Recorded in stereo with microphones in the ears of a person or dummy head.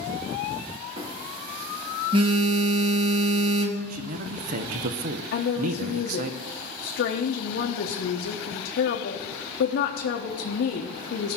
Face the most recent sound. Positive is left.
turn(degrees=75)  # may be behind; listen again after turning